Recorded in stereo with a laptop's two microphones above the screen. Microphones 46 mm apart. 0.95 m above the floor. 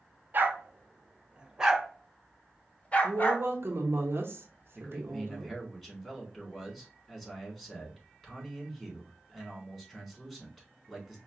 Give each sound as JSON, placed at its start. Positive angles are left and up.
{"t": 0.3, "sound": "a dog barking", "side_deg": -45, "distance_m": 1.0}
{"t": 3.0, "sound": "a woman speaking", "side_deg": -60, "distance_m": 1.0}
{"t": 4.8, "sound": "a man speaking", "side_deg": 5, "distance_m": 3.0}